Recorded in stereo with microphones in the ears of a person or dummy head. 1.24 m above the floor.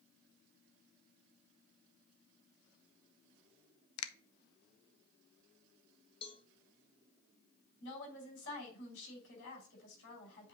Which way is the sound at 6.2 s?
30° left (ahead or behind).